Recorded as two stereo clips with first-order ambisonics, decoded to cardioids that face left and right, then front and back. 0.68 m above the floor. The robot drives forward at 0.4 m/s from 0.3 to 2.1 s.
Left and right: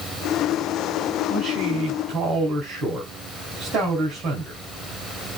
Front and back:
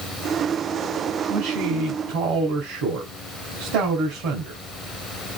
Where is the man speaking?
155° right, 4 m.